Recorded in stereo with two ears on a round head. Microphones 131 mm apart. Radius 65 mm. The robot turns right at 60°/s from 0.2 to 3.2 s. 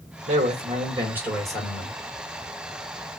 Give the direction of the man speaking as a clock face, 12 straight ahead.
2 o'clock.